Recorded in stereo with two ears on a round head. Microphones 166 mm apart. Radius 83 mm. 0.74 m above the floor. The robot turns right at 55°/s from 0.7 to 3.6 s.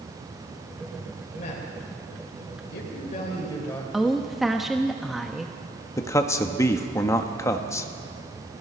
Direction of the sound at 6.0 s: 15° left (ahead or behind).